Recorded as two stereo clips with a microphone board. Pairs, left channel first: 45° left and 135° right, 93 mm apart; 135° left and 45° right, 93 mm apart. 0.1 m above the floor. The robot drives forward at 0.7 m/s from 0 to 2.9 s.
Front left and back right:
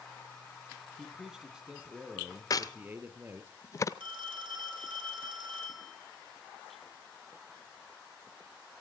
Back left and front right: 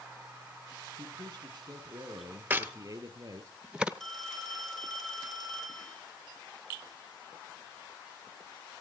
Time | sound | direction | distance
1.0 | a man speaking | 50° right | 3 m
2.5 | a crack | 15° left | 0.8 m
4.0 | a phone ringing | 140° right | 2.5 m